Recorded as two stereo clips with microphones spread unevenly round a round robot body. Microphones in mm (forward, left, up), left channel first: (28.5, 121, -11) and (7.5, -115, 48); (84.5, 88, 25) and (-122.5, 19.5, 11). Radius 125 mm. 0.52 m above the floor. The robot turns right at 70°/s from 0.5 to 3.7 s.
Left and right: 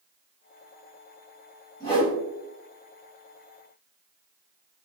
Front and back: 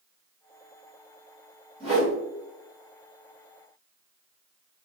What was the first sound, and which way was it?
A whoosh, 140° left.